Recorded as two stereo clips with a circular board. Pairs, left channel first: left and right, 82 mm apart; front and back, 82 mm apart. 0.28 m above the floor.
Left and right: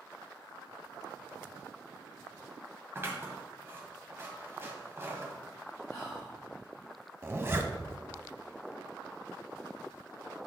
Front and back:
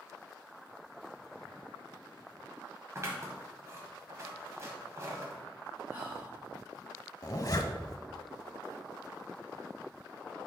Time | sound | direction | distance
3.0 | scissors | 140° right | 1.5 m
5.9 | whispering | 125° left | 1.9 m
7.2 | a zipper | 35° right | 0.7 m